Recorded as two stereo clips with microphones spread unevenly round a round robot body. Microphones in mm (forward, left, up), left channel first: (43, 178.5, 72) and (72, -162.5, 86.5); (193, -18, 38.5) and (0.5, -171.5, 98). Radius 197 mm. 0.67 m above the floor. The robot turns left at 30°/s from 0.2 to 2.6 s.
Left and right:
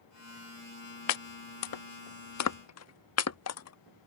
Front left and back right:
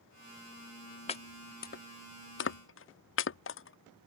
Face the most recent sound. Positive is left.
turn(degrees=50)